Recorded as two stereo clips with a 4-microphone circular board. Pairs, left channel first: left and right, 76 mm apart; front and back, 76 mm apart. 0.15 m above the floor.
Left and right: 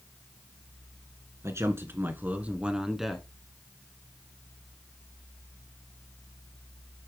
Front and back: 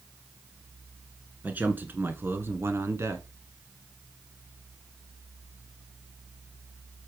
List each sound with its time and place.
1.4 s a man speaking: 120° right, 1.8 m; by 3.3 s 175° left, 1.5 m